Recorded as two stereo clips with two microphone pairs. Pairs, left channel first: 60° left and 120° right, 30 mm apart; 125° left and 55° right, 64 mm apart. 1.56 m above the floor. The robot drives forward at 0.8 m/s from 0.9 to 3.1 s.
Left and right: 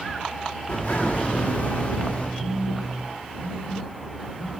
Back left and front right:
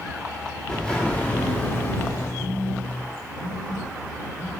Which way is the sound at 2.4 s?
175° right.